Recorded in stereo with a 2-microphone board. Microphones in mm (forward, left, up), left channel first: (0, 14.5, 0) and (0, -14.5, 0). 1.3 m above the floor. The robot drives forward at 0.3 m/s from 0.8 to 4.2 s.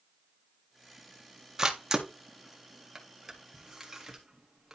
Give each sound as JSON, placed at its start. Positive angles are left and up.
{"t": 1.6, "sound": "a camera shutter", "side_deg": -20, "distance_m": 1.1}